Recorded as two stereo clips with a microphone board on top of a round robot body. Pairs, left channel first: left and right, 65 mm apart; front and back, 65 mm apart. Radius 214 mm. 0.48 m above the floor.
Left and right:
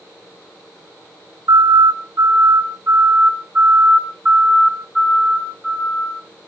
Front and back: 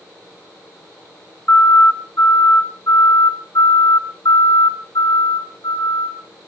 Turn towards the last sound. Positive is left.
turn(degrees=5)